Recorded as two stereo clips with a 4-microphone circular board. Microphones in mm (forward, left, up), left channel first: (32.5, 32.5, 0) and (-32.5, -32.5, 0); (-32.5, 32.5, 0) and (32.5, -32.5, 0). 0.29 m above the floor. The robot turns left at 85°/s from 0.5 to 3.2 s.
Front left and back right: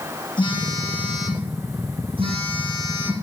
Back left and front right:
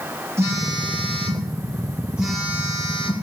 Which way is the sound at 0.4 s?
15° left.